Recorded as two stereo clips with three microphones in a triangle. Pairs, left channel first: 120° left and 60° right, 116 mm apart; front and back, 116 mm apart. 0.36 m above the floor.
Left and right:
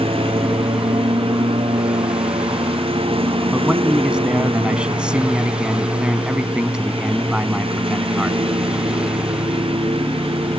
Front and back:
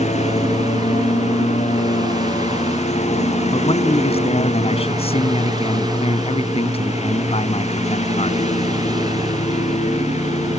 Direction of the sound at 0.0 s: 20° right.